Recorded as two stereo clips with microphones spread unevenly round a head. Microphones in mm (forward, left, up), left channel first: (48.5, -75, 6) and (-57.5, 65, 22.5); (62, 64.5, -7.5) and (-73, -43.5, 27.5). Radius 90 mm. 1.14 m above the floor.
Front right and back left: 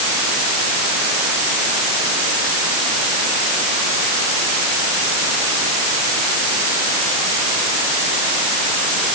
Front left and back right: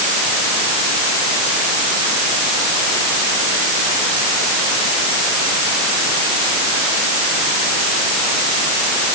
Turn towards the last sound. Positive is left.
No sound to turn to.